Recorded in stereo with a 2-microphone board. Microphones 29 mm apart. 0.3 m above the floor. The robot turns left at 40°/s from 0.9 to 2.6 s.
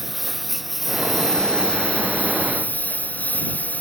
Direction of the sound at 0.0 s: Centre (ahead or behind).